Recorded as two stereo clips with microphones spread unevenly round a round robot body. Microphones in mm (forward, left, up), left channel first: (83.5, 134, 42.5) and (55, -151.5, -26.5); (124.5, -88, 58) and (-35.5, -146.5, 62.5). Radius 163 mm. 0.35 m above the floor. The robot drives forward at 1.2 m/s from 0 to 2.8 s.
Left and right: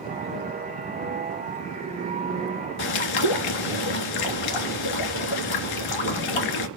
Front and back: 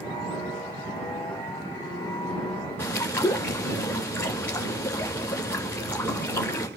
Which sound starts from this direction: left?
A bird, at 2.8 s.